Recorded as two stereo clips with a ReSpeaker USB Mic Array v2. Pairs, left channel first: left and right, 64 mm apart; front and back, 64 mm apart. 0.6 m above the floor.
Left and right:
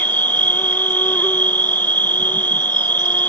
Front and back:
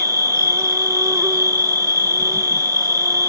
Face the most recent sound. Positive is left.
turn(degrees=150)